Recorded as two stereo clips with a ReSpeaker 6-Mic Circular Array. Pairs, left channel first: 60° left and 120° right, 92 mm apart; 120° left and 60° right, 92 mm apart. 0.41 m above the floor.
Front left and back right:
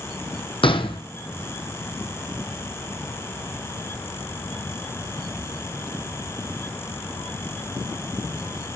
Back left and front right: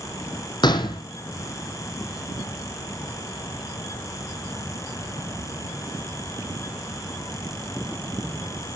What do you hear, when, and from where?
0.6 s a gunshot: 80° left, 2.5 m